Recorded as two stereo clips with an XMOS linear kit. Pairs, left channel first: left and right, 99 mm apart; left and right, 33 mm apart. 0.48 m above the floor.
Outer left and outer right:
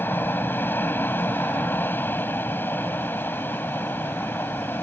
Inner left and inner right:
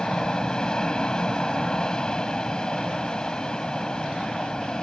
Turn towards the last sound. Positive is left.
turn(degrees=20)  # may be behind; listen again after turning